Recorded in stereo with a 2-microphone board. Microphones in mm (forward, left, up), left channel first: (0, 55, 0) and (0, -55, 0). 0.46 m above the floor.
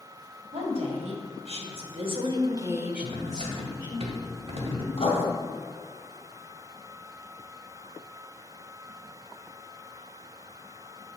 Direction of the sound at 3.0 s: 65° right (ahead or behind).